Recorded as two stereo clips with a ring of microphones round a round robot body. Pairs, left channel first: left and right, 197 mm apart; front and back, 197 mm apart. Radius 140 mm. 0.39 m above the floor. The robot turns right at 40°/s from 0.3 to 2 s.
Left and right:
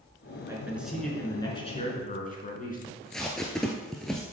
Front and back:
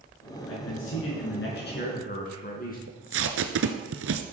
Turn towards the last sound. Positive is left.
turn(degrees=175)